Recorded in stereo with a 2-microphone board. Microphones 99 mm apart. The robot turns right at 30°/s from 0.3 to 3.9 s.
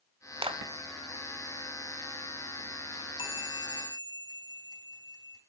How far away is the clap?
About 2.0 m.